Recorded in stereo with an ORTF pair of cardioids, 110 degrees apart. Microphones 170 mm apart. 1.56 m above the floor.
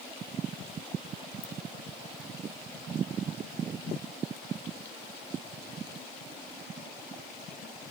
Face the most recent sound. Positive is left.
turn(degrees=45)